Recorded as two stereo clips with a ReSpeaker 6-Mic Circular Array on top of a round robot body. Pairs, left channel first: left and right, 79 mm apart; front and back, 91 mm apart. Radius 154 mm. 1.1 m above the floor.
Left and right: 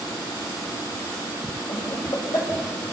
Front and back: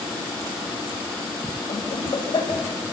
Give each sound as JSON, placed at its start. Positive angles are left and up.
{"t": 1.7, "sound": "laughter", "azimuth_deg": 45, "distance_m": 7.5}